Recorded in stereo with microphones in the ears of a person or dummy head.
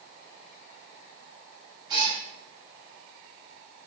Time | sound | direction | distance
1.9 | a cat meowing | 25° right (ahead or behind) | 1.7 m